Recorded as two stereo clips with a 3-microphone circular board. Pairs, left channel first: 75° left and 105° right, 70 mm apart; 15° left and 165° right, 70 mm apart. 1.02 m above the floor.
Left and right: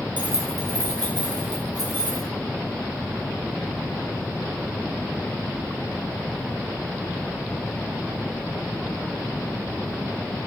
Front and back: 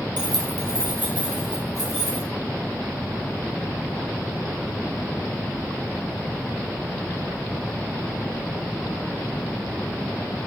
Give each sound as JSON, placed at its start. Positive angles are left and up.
{"t": 0.2, "sound": "keys jangling", "azimuth_deg": -175, "distance_m": 0.5}